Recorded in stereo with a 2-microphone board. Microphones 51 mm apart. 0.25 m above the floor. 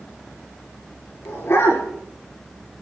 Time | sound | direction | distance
1.2 | a dog barking | 65° left (ahead or behind) | 10 m